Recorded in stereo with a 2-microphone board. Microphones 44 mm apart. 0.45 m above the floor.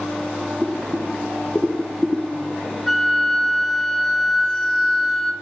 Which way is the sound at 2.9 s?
5° left (ahead or behind).